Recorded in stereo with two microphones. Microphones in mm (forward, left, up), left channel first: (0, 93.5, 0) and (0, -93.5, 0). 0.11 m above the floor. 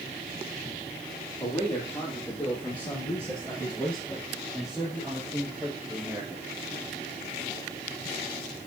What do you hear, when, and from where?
1.4 s a man speaking: 20° left (ahead or behind), 4.5 m; by 6.5 s 10° right (ahead or behind), 2.5 m